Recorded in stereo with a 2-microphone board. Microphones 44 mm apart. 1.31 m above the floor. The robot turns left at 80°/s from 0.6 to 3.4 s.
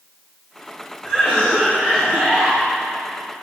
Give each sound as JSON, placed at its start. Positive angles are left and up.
{"t": 1.0, "sound": "a cough", "azimuth_deg": -30, "distance_m": 2.0}